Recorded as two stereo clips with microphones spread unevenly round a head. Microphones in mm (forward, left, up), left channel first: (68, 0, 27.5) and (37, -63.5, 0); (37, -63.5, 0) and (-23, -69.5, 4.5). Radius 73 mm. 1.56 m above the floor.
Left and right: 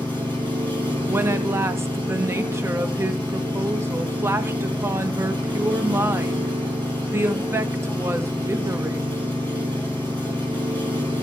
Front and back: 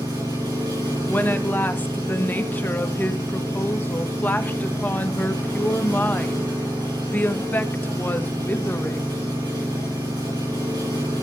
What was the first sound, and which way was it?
An engine running, straight behind.